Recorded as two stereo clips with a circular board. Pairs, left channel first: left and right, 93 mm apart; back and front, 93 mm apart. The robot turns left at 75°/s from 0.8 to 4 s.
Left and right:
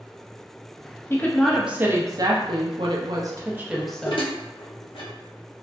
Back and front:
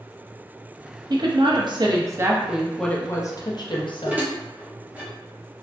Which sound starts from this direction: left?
Dishes clattering, at 3.7 s.